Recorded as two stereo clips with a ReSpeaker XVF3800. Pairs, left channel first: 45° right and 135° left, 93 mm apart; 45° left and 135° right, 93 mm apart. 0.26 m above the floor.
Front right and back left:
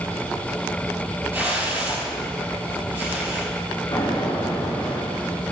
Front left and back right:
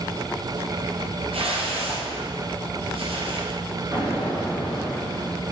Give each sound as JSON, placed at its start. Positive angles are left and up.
{"t": 1.3, "sound": "a whoosh", "azimuth_deg": -155, "distance_m": 2.5}
{"t": 3.9, "sound": "an explosion", "azimuth_deg": -70, "distance_m": 3.0}